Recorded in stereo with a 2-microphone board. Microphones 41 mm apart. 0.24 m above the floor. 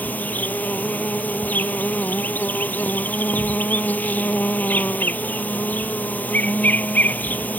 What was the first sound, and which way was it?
An insect, 45° left (ahead or behind).